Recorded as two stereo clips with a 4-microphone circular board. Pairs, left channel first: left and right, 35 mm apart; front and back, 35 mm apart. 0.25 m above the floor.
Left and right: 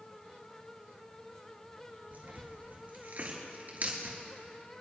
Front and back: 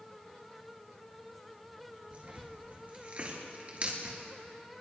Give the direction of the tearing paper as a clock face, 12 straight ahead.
4 o'clock.